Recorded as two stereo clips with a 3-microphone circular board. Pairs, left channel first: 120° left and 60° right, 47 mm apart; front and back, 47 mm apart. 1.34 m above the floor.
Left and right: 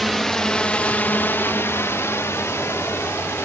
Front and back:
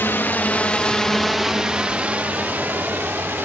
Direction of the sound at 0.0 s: 35° left.